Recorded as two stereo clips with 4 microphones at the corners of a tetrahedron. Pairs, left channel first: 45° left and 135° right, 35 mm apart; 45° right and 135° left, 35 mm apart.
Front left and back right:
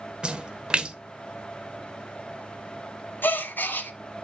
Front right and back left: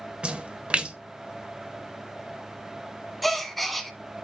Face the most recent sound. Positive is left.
turn(degrees=45)